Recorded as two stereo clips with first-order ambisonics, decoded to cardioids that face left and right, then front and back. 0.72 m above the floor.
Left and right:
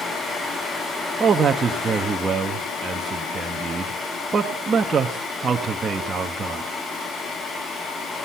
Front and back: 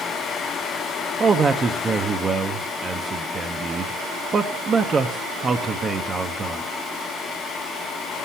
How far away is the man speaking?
About 0.7 m.